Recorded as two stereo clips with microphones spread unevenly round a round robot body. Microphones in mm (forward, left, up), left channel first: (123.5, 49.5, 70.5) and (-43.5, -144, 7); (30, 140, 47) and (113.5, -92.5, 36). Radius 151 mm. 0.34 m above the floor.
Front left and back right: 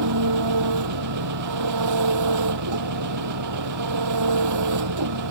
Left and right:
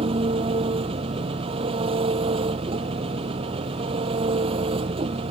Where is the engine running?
140° right.